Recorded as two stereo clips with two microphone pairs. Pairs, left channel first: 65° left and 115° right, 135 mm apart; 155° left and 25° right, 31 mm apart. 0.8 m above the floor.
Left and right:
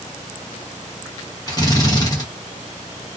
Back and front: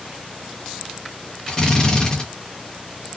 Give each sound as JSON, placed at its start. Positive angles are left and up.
{"t": 1.5, "sound": "a drill", "azimuth_deg": 105, "distance_m": 1.0}